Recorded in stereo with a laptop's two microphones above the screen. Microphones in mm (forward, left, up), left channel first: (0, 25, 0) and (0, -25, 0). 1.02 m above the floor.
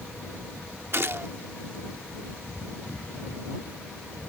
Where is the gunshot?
55° right (ahead or behind).